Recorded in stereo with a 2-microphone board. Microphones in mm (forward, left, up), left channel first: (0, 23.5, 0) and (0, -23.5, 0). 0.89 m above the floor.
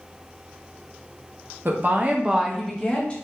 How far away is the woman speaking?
About 0.7 m.